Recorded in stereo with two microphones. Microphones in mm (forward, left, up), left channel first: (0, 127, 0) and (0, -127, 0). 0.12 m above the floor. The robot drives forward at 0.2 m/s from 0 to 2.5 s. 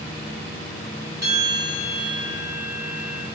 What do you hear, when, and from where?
1.2 s a bell: 40° right (ahead or behind), 3.5 m; by 3.3 s 35° right (ahead or behind), 3.5 m